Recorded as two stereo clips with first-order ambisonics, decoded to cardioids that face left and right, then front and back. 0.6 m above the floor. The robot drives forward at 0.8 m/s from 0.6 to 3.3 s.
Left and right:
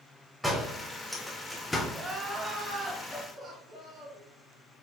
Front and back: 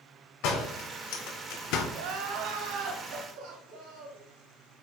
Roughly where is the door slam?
Ahead.